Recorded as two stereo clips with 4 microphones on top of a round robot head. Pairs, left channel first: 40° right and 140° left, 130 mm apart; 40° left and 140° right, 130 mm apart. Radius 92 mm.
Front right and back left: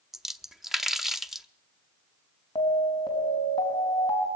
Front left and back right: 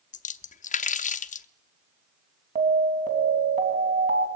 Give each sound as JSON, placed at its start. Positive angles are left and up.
{"t": 0.1, "sound": "a splash", "azimuth_deg": 50, "distance_m": 0.8}
{"t": 2.5, "sound": "an alarm", "azimuth_deg": -100, "distance_m": 3.5}